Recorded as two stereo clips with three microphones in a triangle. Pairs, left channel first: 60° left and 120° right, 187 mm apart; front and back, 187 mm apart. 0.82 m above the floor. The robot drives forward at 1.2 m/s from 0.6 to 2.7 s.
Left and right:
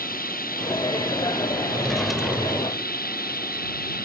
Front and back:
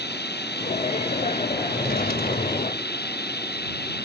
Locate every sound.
0.0 s running water: 25° left
1.7 s a drawer: 25° right; by 2.9 s 45° right